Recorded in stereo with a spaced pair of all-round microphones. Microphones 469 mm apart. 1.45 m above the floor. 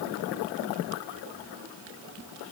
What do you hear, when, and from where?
Only background noise.